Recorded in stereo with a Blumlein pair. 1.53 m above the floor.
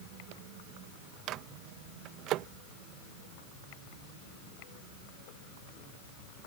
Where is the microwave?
35° right.